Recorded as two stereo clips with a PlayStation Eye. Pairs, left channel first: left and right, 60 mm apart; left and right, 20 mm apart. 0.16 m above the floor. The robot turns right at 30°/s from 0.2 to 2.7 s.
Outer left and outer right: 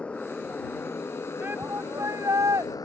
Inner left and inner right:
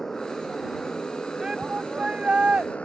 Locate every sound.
0.0 s a motorcycle: 20° left; by 2.9 s 95° left
1.4 s a shout: 145° right; by 2.7 s 110° right